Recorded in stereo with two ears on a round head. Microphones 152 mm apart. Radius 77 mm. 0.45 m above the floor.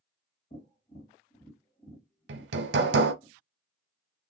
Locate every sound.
0.5 s tapping: 40° left (ahead or behind), 1.7 m
2.3 s hammering: 70° right (ahead or behind), 0.6 m